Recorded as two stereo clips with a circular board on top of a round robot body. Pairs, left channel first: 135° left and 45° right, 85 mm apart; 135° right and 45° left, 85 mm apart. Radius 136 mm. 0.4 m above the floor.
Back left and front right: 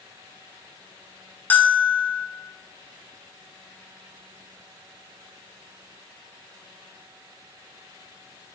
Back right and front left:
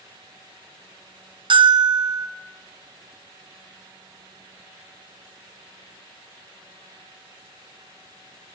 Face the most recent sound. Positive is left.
turn(degrees=65)